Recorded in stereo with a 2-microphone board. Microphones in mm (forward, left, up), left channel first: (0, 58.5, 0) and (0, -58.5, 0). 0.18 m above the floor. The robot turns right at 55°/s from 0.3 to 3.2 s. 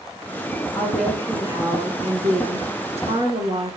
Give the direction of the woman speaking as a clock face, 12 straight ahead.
6 o'clock.